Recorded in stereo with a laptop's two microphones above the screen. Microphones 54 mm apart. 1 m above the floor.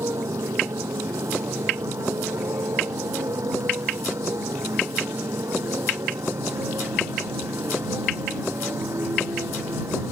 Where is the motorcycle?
85° right; by 10.1 s 65° right (ahead or behind).